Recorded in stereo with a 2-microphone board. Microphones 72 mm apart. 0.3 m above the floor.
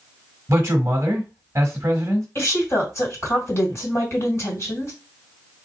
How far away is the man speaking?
About 1.3 m.